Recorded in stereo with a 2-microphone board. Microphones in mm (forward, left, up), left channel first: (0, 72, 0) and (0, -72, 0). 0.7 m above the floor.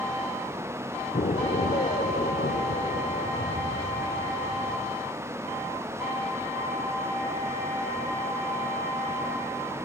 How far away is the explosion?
About 0.7 m.